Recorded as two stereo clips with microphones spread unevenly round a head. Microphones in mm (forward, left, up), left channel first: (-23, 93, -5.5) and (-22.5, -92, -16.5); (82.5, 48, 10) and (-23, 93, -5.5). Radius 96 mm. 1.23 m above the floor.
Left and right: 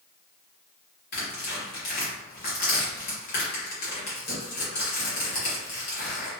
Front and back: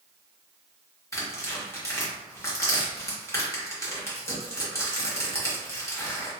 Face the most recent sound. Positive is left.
turn(degrees=45)